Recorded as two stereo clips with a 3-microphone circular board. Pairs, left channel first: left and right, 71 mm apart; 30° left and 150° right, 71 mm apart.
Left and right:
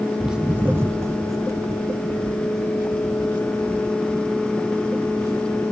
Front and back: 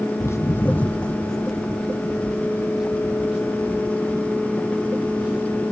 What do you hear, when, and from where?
0.2 s footsteps: 5° right, 0.5 m; by 5.6 s 75° right, 3.5 m